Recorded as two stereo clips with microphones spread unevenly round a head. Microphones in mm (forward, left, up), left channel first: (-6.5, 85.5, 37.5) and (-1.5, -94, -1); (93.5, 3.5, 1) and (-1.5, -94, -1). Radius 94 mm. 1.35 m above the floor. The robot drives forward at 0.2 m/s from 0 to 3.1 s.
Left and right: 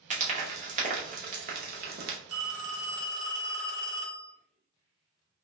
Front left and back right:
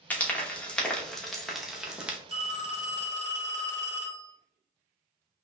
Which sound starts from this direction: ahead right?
Frying, at 0.1 s.